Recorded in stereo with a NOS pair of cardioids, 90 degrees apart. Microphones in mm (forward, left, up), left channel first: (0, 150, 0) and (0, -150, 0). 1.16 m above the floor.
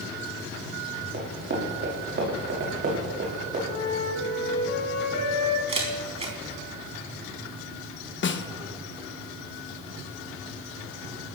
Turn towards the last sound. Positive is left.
turn(degrees=40)